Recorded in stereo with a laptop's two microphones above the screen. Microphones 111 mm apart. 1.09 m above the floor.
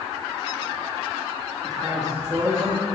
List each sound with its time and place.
1.6 s a man speaking: 65° right (ahead or behind), 2 m